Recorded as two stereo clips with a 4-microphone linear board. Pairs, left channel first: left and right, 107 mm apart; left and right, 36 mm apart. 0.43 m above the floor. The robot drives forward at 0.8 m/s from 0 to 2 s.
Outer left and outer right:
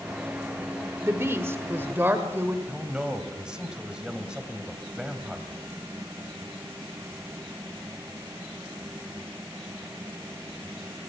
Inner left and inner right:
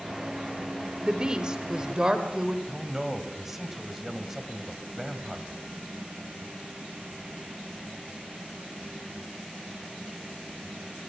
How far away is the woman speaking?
About 1.5 m.